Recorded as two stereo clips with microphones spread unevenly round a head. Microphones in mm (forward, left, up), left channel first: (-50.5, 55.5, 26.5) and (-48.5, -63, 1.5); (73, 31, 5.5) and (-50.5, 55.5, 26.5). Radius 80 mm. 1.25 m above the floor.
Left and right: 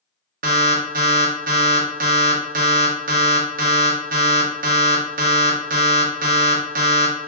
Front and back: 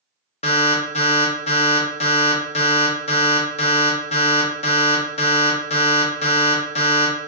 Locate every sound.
0.4 s an alarm: 65° right, 0.8 m